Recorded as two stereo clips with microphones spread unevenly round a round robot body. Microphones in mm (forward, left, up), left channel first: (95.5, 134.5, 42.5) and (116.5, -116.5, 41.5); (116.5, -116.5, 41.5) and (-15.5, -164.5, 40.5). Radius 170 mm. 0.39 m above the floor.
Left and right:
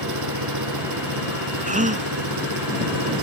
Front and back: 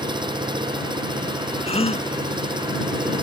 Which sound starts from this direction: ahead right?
A gasp, at 1.7 s.